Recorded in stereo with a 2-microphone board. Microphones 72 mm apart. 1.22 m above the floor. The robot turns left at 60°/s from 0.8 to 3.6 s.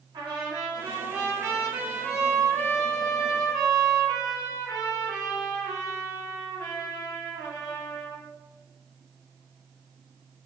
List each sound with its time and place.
0.1 s a trumpet: 100° right, 1.6 m; by 8.2 s 95° left, 1.6 m